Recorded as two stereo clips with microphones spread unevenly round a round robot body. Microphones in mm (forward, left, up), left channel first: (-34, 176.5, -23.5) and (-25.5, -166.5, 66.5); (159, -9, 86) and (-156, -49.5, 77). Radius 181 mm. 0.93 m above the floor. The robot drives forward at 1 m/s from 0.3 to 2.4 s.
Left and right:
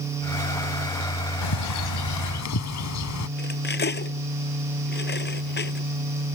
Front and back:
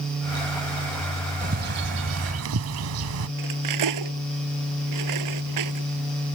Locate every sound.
1.4 s a bird: 120° left; by 3.3 s 140° left
3.4 s cutlery clinking: 155° left